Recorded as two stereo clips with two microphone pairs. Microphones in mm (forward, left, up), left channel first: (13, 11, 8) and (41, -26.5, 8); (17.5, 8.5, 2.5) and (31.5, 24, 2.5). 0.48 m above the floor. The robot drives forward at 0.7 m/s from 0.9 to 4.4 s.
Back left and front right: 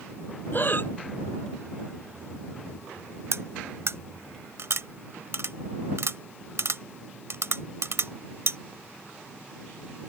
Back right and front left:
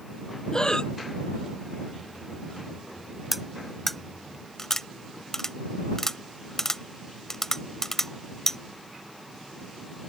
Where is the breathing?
175° left.